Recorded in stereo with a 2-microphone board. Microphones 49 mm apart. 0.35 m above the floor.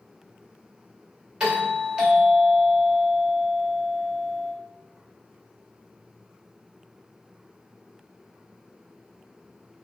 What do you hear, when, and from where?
1.4 s a doorbell: 20° right (ahead or behind), 1.2 m